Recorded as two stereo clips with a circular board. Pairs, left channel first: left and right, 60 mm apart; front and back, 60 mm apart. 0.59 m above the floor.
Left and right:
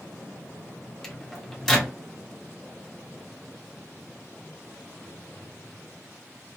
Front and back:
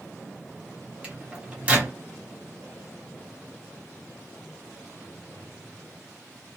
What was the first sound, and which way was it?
A microwave, 160° left.